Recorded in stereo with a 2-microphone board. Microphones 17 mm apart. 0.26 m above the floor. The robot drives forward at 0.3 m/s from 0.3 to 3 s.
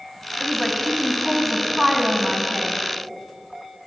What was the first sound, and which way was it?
A woman speaking, 15° right (ahead or behind).